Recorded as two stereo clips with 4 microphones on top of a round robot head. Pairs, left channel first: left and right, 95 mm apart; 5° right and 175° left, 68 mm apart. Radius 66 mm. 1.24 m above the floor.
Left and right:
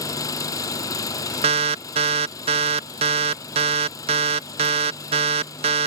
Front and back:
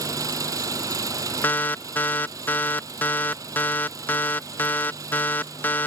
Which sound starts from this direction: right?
An alarm, at 1.4 s.